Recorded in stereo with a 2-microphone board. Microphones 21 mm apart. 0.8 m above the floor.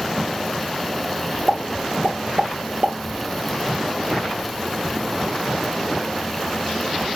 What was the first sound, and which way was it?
A pop, 60° right (ahead or behind).